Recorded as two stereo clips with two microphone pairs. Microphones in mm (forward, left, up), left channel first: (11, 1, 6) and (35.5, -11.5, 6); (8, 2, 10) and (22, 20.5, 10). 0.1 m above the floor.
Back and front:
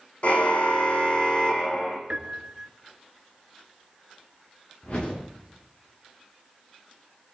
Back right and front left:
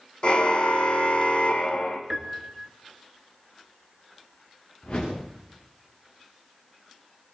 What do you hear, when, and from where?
0.2 s a car horn: 165° right, 3 m; by 2.0 s 145° right, 3.5 m
2.1 s a piano: 5° right, 2.0 m
4.8 s a whoosh: 165° right, 9.5 m